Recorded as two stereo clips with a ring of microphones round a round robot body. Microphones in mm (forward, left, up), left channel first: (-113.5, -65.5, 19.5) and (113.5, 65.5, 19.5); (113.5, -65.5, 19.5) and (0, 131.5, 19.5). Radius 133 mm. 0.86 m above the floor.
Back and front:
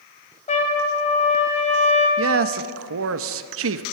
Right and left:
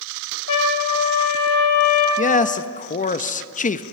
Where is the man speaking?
5° right, 0.7 m.